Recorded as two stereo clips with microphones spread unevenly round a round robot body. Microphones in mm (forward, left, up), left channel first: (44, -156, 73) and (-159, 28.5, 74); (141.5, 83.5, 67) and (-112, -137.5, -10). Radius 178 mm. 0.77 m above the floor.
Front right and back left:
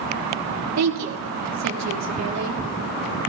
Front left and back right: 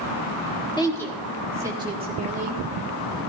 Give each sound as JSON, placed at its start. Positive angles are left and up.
{"t": 0.8, "sound": "a woman speaking", "azimuth_deg": 125, "distance_m": 1.6}